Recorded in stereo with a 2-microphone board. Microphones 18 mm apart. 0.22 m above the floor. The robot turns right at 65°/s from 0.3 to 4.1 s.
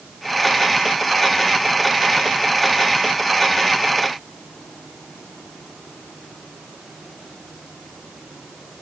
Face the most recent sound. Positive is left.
No sound to turn to.